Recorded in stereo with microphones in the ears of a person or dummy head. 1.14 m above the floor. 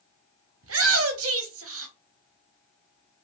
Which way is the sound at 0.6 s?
80° right.